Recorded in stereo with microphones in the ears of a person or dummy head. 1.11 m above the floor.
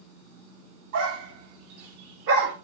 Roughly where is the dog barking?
Right.